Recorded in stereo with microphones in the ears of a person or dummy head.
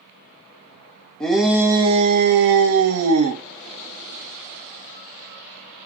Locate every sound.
1.2 s a shout: 5° left (ahead or behind), 0.7 m; by 3.4 s 75° right (ahead or behind), 0.9 m